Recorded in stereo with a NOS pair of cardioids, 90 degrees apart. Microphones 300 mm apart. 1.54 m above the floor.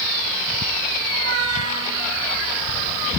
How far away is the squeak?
About 5 m.